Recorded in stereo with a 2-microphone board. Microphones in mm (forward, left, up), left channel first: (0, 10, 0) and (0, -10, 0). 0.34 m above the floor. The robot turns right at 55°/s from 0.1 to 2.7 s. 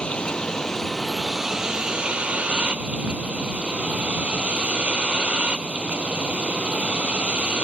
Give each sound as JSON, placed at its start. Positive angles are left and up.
{"t": 0.0, "sound": "a vehicle", "azimuth_deg": 120}